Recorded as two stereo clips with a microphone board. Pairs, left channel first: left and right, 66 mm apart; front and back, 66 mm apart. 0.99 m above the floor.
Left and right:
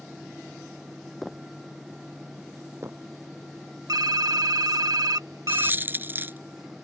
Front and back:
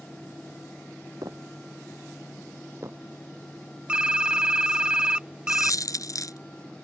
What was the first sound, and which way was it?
Footsteps, straight behind.